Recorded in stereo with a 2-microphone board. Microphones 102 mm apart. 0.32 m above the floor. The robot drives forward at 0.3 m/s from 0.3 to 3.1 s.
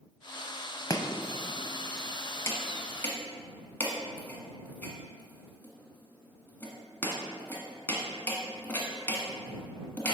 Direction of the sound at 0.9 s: 35° left (ahead or behind).